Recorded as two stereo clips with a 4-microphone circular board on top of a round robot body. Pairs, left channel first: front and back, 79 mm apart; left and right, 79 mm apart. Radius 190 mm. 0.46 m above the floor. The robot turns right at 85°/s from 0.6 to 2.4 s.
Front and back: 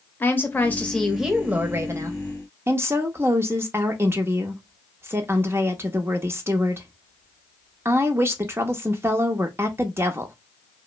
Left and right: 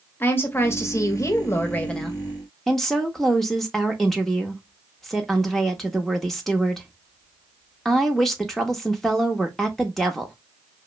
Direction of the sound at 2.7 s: 175° left.